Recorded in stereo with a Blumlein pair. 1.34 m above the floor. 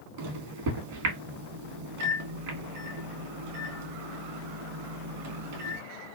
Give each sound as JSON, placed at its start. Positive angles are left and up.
{"t": 0.2, "sound": "a microwave", "azimuth_deg": -50, "distance_m": 1.1}